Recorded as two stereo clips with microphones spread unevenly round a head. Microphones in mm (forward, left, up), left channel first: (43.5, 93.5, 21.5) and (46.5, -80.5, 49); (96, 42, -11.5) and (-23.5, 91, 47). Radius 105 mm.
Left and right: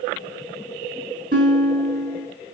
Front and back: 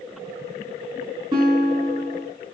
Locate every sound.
1.3 s a guitar: 140° right, 5 m